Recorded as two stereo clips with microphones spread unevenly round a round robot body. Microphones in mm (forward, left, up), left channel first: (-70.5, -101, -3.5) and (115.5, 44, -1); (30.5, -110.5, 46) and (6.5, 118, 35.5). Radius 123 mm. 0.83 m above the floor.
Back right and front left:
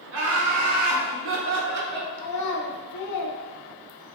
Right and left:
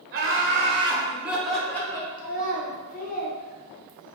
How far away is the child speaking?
About 0.8 m.